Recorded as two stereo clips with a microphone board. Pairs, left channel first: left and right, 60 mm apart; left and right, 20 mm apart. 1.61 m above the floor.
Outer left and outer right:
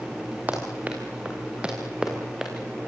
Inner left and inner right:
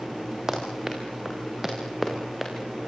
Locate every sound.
0.5 s running footsteps: 25° right (ahead or behind), 7.5 m; by 2.5 s 5° right (ahead or behind), 6.5 m